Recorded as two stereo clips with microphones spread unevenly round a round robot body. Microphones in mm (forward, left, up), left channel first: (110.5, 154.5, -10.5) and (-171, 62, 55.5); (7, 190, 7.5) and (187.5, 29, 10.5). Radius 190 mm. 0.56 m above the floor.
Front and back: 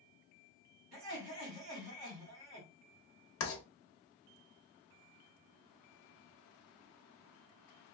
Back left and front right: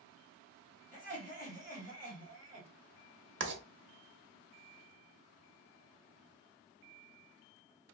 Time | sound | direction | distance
0.9 | laughter | 110° right | 1.9 m
3.4 | writing | 5° right | 1.0 m